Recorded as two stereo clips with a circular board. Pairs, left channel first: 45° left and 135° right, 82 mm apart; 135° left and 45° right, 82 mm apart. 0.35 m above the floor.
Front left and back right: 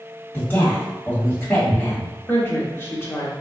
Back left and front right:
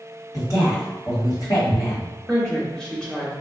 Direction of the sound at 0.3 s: 110° left.